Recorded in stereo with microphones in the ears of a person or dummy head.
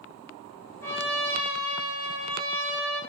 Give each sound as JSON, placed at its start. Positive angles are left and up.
{"t": 0.8, "sound": "a trumpet", "side_deg": 20, "distance_m": 5.5}